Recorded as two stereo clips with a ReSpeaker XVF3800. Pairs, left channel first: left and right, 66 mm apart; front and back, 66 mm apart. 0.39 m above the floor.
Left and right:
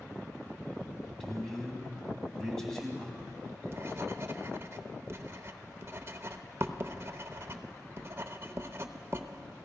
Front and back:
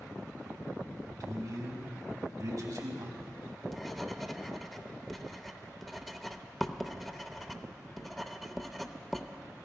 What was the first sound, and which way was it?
A man speaking, 175° left.